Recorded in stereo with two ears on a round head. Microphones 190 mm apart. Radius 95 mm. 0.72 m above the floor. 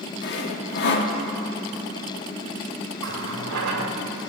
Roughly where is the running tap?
Right.